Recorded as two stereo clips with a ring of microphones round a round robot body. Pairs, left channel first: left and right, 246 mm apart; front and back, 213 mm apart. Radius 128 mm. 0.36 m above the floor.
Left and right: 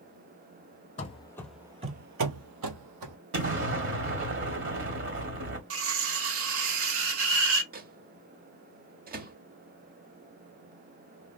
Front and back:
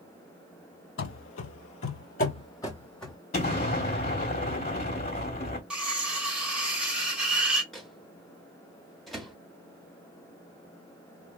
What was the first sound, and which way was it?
Running footsteps, 25° left.